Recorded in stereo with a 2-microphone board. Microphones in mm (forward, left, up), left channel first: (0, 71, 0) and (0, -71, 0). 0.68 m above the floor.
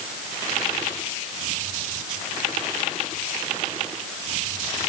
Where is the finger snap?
I don't hear a finger snap.